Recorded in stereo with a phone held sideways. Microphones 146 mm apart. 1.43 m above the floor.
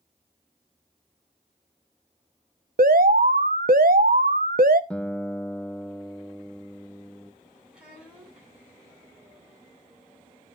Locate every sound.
2.8 s an alarm: 75° right (ahead or behind), 0.9 m
4.9 s a guitar: 5° left (ahead or behind), 0.6 m
7.7 s a child speaking: 5° right (ahead or behind), 9 m